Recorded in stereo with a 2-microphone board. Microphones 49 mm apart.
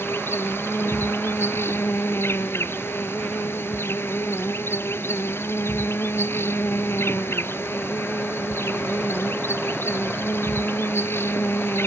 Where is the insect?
60° left (ahead or behind).